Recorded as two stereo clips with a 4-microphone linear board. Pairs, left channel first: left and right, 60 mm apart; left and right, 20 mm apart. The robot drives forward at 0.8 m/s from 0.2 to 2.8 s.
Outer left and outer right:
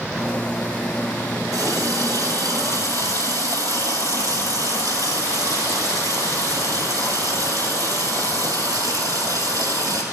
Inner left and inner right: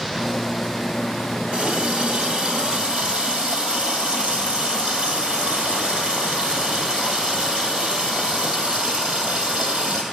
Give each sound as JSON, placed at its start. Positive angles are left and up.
{"t": 1.5, "sound": "a running tap", "side_deg": -70, "distance_m": 2.0}